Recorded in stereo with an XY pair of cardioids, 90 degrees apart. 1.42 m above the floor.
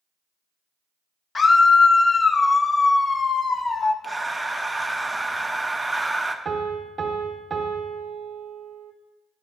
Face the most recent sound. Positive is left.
turn(degrees=-45)